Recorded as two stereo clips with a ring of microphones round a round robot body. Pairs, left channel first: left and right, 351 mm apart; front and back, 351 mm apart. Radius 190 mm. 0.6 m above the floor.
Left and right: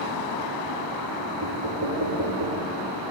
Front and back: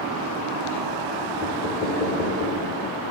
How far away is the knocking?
About 4.5 m.